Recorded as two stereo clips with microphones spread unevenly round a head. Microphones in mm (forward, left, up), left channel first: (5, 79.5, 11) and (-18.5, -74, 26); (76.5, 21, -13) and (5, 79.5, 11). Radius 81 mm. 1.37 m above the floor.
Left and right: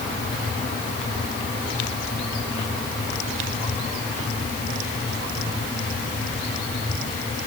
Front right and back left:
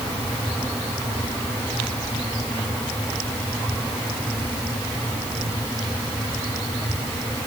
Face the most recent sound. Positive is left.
No sound to turn to.